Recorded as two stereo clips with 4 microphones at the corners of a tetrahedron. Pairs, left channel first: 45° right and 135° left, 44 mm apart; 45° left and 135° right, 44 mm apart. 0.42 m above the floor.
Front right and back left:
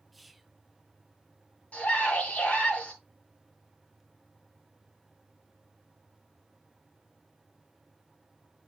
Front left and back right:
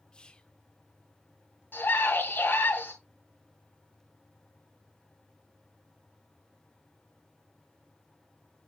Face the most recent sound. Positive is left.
turn(degrees=5)